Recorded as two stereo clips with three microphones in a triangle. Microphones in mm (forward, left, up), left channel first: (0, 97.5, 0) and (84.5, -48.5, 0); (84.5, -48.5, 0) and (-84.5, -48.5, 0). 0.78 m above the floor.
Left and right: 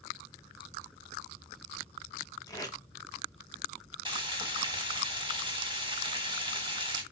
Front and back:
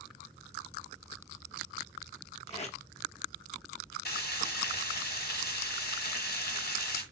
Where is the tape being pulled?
50° left, 0.7 m.